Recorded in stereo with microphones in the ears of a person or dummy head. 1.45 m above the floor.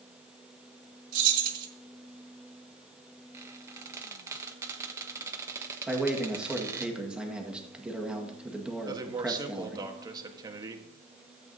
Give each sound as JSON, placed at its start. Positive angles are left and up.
{"t": 1.1, "sound": "keys jangling", "side_deg": -45, "distance_m": 1.9}
{"t": 3.3, "sound": "a squeak", "side_deg": -15, "distance_m": 1.1}
{"t": 5.9, "sound": "a man speaking", "side_deg": 0, "distance_m": 1.7}
{"t": 8.8, "sound": "a man speaking", "side_deg": -20, "distance_m": 1.3}